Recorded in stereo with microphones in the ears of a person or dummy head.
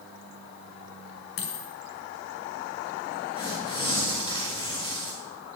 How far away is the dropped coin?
About 2 m.